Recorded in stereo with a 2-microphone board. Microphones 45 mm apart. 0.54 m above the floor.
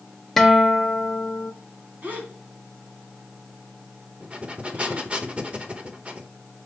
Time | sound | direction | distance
0.4 | a guitar | 5° left (ahead or behind) | 0.9 m
2.0 | a gasp | 35° right (ahead or behind) | 1.9 m
4.2 | breathing | 25° right (ahead or behind) | 0.9 m